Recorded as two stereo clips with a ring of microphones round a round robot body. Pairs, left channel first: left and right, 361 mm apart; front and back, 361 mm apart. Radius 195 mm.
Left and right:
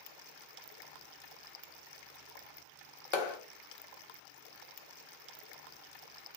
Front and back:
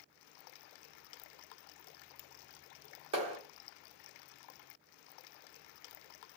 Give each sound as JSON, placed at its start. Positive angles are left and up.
{"t": 3.1, "sound": "a clap", "azimuth_deg": 105, "distance_m": 1.1}